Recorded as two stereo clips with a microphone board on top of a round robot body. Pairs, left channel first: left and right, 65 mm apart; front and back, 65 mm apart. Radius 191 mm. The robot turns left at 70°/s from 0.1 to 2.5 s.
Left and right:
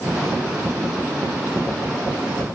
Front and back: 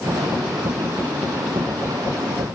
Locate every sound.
Only background noise.